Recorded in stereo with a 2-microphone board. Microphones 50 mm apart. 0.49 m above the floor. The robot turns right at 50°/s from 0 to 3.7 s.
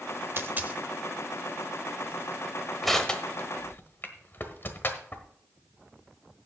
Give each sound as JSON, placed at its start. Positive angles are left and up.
{"t": 0.4, "sound": "a dropped coin", "side_deg": -50, "distance_m": 0.9}
{"t": 2.8, "sound": "crushing", "side_deg": 0, "distance_m": 1.3}